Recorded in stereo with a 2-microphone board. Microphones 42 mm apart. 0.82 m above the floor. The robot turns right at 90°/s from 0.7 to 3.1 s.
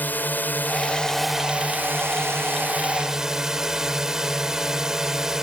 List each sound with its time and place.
0.0 s a drone: 130° left; by 5.5 s 15° right